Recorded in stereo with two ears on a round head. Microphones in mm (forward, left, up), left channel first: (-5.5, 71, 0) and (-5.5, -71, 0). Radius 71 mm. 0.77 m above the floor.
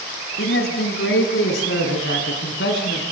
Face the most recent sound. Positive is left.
turn(degrees=75)  # may be behind; listen again after turning